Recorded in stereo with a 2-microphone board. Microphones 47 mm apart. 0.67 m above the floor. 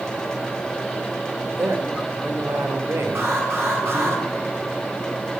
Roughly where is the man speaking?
Right.